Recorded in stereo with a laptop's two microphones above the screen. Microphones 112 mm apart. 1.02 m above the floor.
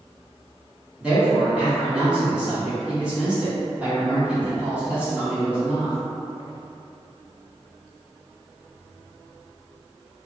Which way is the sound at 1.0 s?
10° right (ahead or behind).